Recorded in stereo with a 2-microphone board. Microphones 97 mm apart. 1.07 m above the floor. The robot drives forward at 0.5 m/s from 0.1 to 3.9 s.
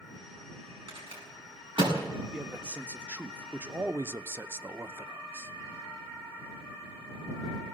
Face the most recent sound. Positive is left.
turn(degrees=-25)  # may be behind; listen again after turning